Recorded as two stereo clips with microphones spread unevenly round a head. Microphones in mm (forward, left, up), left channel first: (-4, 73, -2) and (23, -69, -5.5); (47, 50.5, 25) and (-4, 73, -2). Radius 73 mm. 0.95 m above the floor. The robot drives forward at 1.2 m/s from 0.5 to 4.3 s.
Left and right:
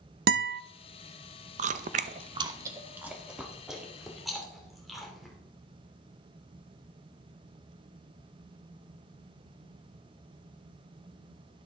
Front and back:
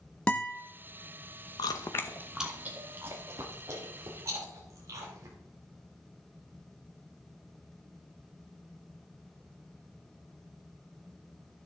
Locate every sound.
0.3 s a guitar: 105° right, 0.6 m; by 0.6 s 115° right, 0.6 m
1.6 s chewing: 55° right, 0.8 m; by 5.3 s 170° right, 3 m